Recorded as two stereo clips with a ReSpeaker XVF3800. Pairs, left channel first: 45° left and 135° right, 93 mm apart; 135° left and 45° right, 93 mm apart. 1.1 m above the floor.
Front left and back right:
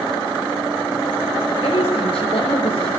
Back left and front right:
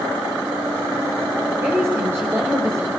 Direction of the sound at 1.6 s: 20° left.